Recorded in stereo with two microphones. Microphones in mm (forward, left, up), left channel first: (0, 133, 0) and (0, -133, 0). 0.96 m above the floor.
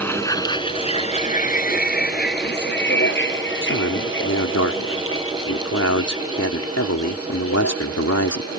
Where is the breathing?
I don't hear breathing.